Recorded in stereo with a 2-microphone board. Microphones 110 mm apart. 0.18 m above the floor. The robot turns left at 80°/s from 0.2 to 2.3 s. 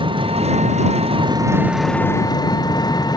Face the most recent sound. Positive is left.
turn(degrees=140)